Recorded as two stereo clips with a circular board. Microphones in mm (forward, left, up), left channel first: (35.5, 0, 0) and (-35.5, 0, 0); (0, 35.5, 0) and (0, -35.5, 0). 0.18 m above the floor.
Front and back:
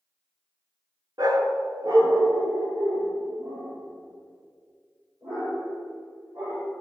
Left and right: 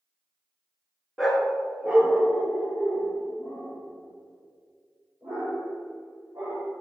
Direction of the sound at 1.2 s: Straight behind.